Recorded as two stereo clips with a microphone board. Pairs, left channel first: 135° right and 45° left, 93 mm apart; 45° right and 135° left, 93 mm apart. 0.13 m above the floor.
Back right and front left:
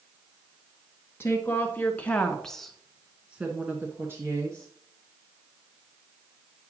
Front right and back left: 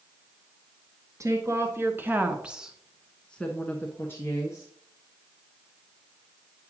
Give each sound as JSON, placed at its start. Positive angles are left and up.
{"t": 1.2, "sound": "a woman speaking", "azimuth_deg": 175, "distance_m": 1.5}